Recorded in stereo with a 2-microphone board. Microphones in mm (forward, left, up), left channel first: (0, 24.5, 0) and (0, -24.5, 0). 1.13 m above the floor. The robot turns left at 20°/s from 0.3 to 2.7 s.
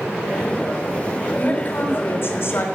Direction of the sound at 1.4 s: 40° left (ahead or behind).